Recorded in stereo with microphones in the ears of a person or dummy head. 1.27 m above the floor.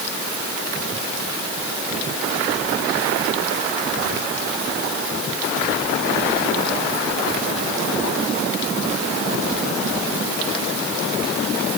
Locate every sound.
Only background noise.